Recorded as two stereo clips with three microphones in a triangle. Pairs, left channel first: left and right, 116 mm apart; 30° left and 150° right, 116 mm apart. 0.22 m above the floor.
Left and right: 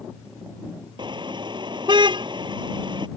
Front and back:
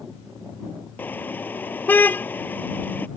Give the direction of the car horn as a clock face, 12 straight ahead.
1 o'clock.